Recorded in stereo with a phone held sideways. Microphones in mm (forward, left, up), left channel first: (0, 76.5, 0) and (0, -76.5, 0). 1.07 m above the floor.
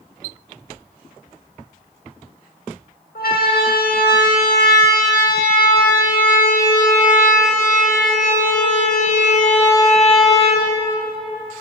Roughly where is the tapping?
No tapping in this recording.